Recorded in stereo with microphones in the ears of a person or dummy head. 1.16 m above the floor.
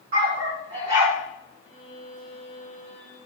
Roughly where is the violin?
Centre.